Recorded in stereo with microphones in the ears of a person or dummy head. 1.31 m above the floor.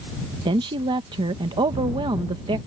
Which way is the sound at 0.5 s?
20° right (ahead or behind).